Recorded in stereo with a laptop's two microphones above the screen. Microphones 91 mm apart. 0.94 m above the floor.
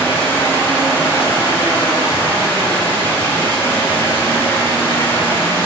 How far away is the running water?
About 4 m.